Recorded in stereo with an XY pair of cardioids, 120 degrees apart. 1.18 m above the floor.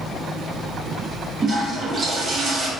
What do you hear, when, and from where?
1.4 s a toilet flushing: 30° right, 1.0 m